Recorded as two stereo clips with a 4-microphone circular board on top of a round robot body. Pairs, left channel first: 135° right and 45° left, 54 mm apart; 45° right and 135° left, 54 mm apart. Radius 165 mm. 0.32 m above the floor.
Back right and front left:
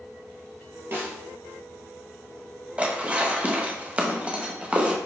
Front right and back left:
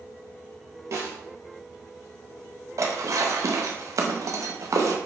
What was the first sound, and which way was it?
A snare drum, 100° left.